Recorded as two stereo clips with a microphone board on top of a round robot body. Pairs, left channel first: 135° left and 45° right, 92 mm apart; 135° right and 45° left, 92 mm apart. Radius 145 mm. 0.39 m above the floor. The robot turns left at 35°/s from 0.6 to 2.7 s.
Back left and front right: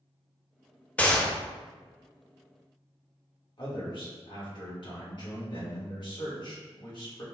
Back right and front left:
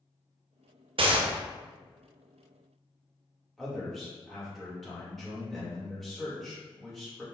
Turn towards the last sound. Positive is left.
turn(degrees=135)